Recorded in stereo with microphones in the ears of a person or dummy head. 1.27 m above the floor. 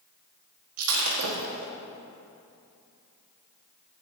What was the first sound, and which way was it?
Breaking glass, 75° right (ahead or behind).